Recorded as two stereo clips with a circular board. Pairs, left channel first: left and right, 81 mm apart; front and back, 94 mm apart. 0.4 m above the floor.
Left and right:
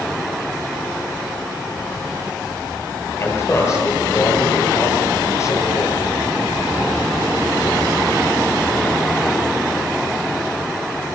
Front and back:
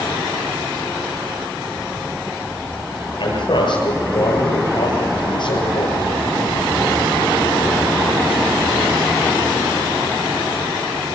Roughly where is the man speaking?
Ahead left.